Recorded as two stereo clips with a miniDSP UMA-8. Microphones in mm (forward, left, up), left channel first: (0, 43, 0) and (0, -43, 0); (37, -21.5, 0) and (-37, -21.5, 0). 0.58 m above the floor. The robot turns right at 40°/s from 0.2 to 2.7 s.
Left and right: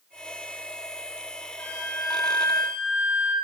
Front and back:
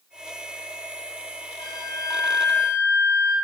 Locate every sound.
1.6 s a flute: 25° left, 1.7 m; by 3.4 s 65° left, 1.7 m